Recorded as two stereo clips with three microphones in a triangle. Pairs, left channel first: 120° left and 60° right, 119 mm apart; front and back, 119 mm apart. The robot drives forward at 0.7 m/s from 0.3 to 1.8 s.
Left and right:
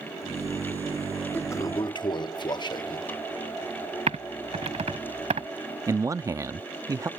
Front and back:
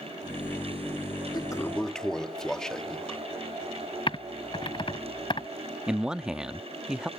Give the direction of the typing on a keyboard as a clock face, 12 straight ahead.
1 o'clock.